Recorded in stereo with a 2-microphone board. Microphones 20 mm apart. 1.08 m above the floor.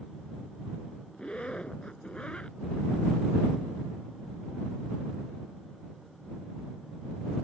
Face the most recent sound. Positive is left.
turn(degrees=60)  # may be behind; listen again after turning